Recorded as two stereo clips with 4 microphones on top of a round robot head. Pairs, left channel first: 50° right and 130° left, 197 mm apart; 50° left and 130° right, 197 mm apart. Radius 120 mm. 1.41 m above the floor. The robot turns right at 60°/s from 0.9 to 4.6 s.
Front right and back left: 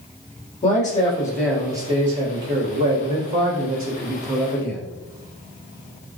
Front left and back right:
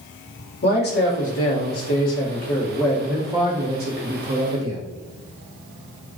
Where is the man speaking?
5° left, 1.4 m; by 4.8 s 130° right, 1.4 m.